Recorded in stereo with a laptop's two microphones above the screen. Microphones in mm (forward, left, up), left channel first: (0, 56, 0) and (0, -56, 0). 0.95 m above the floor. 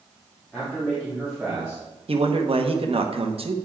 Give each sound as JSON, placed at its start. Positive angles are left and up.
{"t": 0.5, "sound": "a man speaking", "side_deg": 5, "distance_m": 2.0}
{"t": 2.1, "sound": "a man speaking", "side_deg": -60, "distance_m": 0.8}